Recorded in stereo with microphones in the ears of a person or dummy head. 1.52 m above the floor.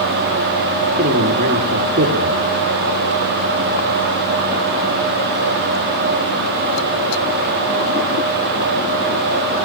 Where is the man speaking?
40° right (ahead or behind), 2.5 m.